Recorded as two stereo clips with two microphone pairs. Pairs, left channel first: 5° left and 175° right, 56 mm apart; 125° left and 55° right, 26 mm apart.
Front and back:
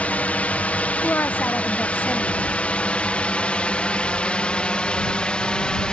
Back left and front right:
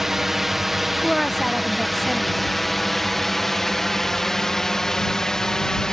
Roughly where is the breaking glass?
No breaking glass in this recording.